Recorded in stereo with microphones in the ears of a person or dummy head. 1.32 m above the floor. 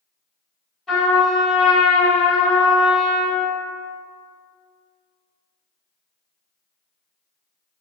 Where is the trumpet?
5° left (ahead or behind), 1.1 m.